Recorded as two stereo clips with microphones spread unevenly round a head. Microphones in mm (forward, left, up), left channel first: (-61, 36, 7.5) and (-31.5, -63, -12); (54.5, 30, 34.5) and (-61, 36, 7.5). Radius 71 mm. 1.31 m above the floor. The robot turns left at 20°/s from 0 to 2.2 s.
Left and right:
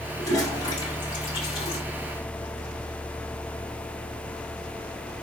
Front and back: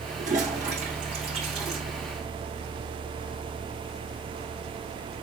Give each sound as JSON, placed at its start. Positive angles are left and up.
{"t": 0.2, "sound": "a toilet flushing", "azimuth_deg": 165, "distance_m": 5.5}